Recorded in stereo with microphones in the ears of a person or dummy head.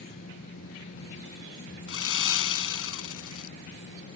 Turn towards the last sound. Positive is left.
turn(degrees=80)